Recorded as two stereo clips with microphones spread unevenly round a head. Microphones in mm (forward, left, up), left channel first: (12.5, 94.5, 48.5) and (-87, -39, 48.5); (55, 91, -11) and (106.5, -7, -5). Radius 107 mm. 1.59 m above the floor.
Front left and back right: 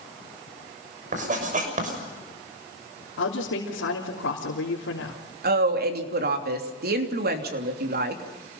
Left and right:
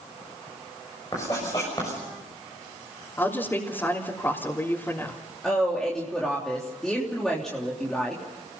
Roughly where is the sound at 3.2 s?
Ahead left.